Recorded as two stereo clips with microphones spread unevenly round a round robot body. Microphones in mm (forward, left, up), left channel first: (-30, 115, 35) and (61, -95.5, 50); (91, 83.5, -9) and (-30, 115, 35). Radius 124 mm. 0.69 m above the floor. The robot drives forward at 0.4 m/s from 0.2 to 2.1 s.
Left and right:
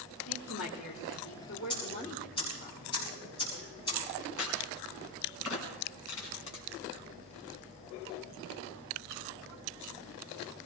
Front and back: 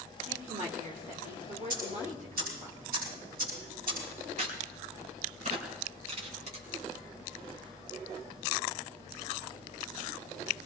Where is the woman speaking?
125° left, 2.5 m; by 2.7 s 140° left, 3 m.